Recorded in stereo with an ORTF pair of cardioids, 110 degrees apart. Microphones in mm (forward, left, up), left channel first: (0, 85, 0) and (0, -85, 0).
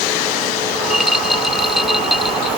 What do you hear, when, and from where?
0.7 s a rattle: straight ahead